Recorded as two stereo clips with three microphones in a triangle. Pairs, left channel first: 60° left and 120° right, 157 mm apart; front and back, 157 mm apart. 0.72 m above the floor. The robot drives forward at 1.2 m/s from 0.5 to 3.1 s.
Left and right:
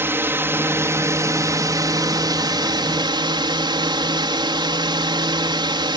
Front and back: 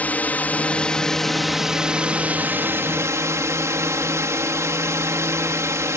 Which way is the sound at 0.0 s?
65° right.